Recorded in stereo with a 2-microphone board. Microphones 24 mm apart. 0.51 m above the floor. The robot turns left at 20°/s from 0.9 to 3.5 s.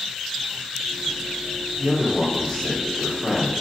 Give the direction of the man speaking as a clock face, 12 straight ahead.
7 o'clock.